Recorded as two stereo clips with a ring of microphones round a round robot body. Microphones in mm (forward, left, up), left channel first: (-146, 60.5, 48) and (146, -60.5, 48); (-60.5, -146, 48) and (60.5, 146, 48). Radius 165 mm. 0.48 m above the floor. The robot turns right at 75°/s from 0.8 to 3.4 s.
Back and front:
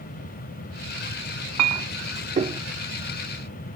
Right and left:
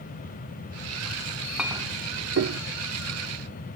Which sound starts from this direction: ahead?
A clink, at 1.6 s.